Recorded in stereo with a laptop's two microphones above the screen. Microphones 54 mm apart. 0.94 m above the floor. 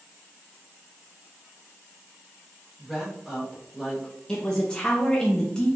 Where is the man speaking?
15° left (ahead or behind), 0.7 m.